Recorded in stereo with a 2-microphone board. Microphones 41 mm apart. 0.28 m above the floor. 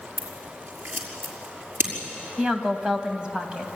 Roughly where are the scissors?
Right.